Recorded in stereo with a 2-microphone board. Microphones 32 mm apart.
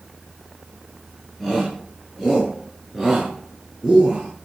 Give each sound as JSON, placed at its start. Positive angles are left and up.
{"t": 1.4, "sound": "a shout", "side_deg": 5, "distance_m": 10.0}